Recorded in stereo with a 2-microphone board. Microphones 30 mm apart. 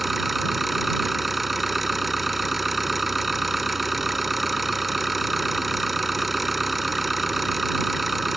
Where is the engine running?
Centre (ahead or behind).